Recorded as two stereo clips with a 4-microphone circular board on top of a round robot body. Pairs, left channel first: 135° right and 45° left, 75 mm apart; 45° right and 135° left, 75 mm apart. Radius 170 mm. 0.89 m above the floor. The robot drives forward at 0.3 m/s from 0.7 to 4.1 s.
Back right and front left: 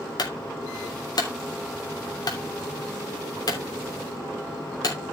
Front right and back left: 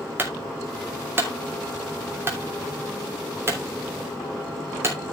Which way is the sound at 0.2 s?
165° right.